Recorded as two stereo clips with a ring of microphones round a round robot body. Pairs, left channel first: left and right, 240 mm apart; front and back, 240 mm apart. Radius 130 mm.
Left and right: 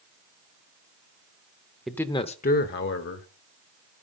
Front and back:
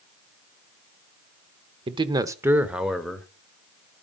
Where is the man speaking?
Straight behind, 0.8 m; by 3.3 s 90° left, 1.3 m.